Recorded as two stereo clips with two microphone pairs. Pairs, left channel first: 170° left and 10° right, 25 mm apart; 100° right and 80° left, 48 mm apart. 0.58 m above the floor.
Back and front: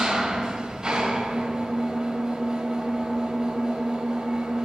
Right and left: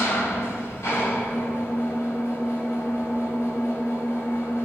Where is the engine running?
80° right, 2.5 m.